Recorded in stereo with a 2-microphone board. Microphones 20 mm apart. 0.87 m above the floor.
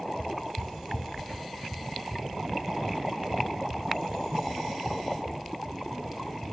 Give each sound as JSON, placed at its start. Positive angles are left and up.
{"t": 0.2, "sound": "footsteps", "side_deg": 55, "distance_m": 2.5}